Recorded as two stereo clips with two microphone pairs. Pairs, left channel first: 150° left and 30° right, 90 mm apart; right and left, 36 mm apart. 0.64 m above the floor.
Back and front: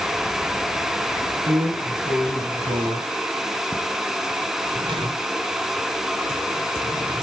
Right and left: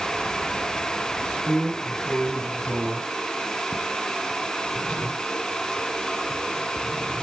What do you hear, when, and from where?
1.5 s a drawer: 15° right, 3 m